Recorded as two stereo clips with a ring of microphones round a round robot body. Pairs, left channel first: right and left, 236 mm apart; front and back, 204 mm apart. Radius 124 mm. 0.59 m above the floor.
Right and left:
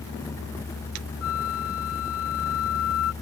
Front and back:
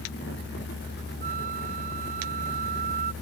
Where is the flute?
120° right.